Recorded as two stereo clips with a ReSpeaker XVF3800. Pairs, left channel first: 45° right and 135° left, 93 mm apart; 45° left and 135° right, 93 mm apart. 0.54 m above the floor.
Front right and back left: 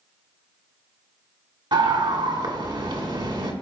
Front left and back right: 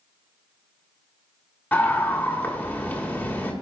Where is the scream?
115° left, 2.5 m.